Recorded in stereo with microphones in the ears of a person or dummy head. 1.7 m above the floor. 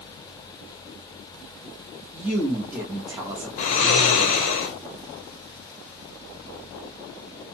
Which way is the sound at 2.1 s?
15° right (ahead or behind).